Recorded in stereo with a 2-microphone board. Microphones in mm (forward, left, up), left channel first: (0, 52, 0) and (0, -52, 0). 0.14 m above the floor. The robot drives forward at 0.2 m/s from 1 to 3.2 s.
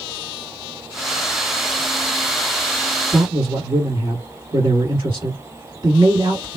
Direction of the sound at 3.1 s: 45° right (ahead or behind).